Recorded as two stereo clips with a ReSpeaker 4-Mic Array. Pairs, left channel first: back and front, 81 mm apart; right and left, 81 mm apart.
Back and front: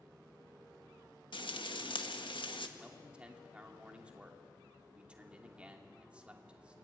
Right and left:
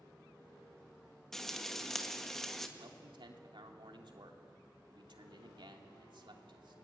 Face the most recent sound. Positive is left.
turn(degrees=75)